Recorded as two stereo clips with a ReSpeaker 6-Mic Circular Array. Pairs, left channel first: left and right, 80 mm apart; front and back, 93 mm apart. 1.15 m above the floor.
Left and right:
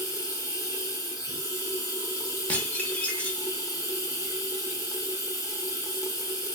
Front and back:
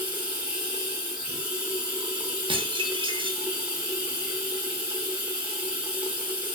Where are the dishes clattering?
160° left, 0.6 m.